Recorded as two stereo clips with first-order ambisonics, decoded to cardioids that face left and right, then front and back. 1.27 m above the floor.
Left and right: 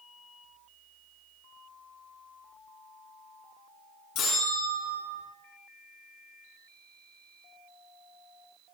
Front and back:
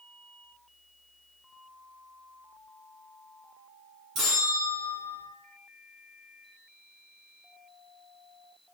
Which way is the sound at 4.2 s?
130° left.